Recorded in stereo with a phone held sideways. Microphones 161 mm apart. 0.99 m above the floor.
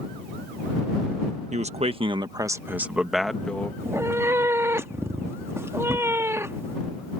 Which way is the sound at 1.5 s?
45° right (ahead or behind).